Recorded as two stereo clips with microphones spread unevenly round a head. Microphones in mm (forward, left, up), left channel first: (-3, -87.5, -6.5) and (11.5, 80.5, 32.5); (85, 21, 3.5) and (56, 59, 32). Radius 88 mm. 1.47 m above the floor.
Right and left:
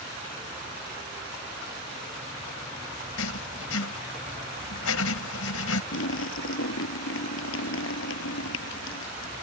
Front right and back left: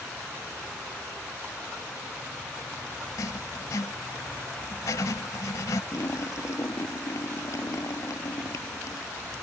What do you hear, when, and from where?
3.2 s writing: 100° right
5.9 s a splash: 105° right